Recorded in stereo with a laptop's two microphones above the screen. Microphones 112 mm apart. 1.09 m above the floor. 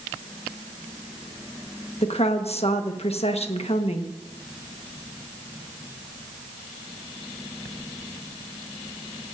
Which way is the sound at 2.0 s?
70° left (ahead or behind).